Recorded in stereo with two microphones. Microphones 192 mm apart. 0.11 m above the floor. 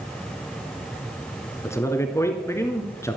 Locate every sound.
1.6 s a man speaking: 15° left (ahead or behind), 1.8 m